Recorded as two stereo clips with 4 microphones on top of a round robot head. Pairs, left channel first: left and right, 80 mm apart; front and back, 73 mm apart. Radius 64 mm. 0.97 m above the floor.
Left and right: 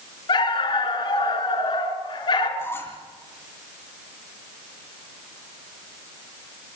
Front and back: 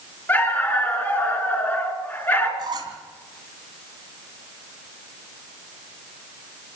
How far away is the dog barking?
About 3.5 m.